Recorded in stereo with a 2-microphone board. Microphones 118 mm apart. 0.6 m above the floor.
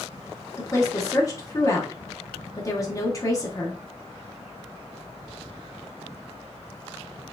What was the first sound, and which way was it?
A woman speaking, 30° left (ahead or behind).